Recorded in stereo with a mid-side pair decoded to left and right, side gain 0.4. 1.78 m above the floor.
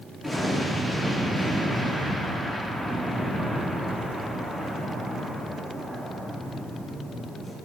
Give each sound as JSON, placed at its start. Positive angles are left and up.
{"t": 0.2, "sound": "an explosion", "azimuth_deg": 0, "distance_m": 4.5}